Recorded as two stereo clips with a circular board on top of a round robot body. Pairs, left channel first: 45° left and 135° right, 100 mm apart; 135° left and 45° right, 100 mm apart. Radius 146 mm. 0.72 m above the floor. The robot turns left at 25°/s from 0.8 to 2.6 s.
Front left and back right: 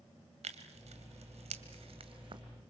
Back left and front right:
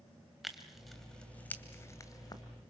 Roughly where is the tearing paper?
Behind right.